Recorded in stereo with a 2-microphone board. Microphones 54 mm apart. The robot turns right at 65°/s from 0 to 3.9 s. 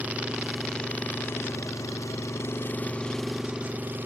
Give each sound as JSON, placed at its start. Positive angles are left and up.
{"t": 0.0, "sound": "an engine running", "azimuth_deg": -35}